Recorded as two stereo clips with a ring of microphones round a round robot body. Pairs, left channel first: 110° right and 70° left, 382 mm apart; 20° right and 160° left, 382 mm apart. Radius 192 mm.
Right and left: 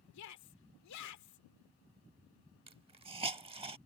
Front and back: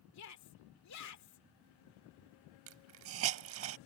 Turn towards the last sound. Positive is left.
turn(degrees=135)